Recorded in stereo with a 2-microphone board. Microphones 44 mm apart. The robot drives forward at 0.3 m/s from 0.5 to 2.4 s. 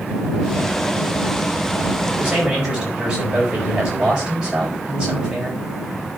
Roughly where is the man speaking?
Centre.